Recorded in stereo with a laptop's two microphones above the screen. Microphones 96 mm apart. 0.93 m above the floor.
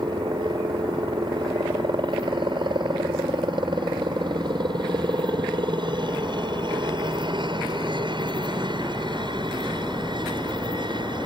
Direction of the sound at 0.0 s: 55° right (ahead or behind).